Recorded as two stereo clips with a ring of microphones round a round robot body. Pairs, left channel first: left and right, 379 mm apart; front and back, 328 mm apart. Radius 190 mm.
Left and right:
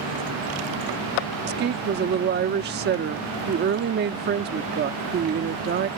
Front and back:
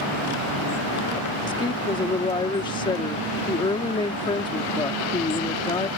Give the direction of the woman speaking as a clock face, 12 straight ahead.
2 o'clock.